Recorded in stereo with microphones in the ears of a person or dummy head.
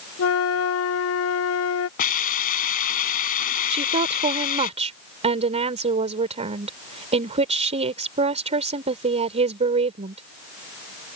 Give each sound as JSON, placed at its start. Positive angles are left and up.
{"t": 0.2, "sound": "a flute", "side_deg": 65}
{"t": 2.0, "sound": "a hiss", "side_deg": 50}
{"t": 3.7, "sound": "a woman speaking", "side_deg": -30}